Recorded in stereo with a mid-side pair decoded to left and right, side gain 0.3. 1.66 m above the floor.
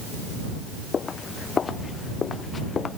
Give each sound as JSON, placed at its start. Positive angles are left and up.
{"t": 0.9, "sound": "footsteps", "azimuth_deg": 60}